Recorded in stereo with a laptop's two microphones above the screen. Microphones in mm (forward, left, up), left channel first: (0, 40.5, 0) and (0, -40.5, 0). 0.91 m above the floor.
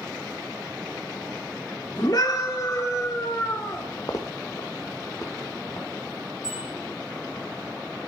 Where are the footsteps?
45° left (ahead or behind), 1.5 m.